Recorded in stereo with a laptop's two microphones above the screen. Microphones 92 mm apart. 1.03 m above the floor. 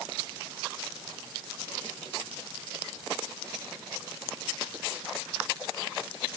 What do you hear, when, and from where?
Only background noise.